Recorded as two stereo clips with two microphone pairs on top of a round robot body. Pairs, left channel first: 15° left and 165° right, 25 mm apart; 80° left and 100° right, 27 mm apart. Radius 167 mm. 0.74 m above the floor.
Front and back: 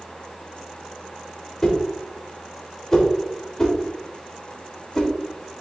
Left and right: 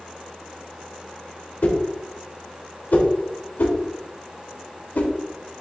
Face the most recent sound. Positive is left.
turn(degrees=80)